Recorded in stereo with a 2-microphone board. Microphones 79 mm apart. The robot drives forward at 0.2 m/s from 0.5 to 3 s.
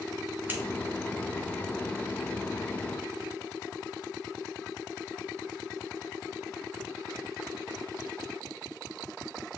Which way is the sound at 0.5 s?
25° right (ahead or behind).